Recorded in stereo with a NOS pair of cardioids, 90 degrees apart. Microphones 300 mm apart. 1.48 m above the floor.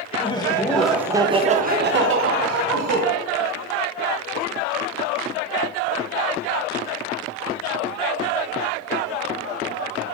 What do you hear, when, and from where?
0.2 s laughter: 20° left, 1.3 m; by 3.0 s 65° right, 1.5 m